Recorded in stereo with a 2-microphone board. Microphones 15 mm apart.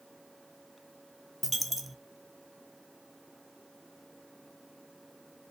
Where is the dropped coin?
5° right (ahead or behind), 0.6 m.